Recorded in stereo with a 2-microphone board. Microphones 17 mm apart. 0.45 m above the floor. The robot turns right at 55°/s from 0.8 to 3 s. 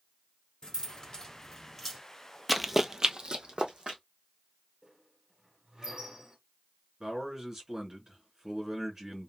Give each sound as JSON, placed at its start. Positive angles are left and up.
{"t": 0.6, "sound": "keys jangling", "side_deg": 60, "distance_m": 1.6}
{"t": 2.5, "sound": "running footsteps", "side_deg": -5, "distance_m": 0.5}
{"t": 4.8, "sound": "a squeak", "side_deg": -50, "distance_m": 2.5}
{"t": 7.0, "sound": "a man speaking", "side_deg": -25, "distance_m": 2.5}